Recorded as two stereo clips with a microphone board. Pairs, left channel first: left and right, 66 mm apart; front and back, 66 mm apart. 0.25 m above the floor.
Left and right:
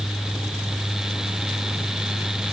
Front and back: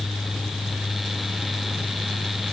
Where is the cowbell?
No cowbell in this recording.